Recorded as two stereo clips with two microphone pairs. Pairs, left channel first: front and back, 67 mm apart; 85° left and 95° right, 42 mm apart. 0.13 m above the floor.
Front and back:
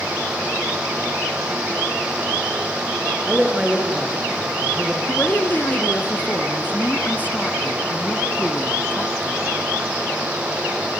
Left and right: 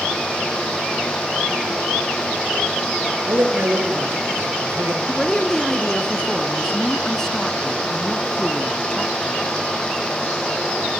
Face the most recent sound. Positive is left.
turn(degrees=25)